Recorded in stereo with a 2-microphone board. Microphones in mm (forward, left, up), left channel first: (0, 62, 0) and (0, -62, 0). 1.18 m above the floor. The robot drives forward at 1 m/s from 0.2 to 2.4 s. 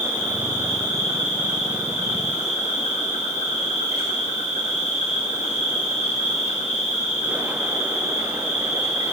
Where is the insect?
85° left, 7 m; by 9.1 s 65° left (ahead or behind), 7.5 m.